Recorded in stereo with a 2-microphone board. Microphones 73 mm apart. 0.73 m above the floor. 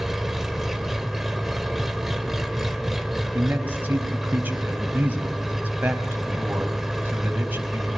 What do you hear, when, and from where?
0.0 s an engine running: 5° right (ahead or behind), 1.8 m
3.3 s a man speaking: 25° right (ahead or behind), 4.5 m